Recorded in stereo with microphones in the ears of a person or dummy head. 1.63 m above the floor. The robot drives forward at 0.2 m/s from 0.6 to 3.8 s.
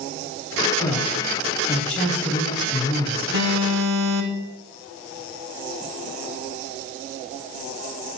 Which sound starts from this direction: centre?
A man speaking, at 0.8 s.